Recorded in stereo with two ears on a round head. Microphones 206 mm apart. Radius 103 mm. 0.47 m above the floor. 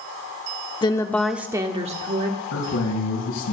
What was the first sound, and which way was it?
A woman speaking, 20° left (ahead or behind).